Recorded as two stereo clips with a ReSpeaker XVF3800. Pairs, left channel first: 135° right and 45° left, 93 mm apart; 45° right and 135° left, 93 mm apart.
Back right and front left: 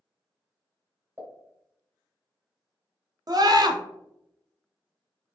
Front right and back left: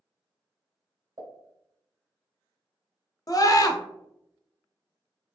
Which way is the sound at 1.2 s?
105° left.